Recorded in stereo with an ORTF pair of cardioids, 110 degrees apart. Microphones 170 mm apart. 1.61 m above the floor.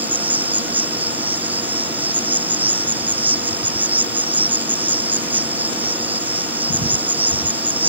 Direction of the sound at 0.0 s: 10° right.